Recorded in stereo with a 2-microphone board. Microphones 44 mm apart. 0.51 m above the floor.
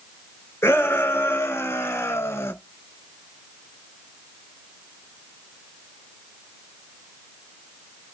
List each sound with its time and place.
0.6 s a shout: 85° left, 6 m; by 2.5 s 80° left, 5.5 m